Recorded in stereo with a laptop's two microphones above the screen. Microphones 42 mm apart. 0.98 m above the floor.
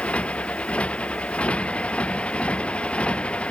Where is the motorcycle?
25° left (ahead or behind).